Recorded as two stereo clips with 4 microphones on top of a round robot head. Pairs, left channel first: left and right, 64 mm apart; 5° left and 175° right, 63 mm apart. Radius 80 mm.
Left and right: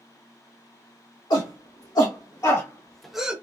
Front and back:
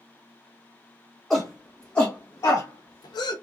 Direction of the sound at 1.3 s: 90° left.